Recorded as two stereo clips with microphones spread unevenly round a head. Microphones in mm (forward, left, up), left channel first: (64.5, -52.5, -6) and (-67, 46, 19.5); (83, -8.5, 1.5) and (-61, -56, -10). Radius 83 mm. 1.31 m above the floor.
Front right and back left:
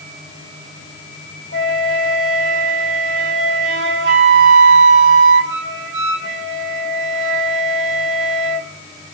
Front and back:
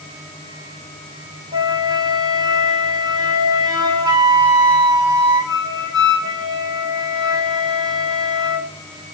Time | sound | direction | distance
1.5 | a flute | 130° left | 2.5 m